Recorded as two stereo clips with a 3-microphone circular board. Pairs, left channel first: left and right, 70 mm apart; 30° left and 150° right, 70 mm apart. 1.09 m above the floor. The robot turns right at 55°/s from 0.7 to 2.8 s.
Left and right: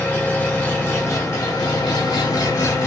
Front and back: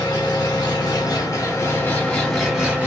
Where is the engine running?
25° left, 1.0 m; by 2.9 s 140° left, 1.0 m.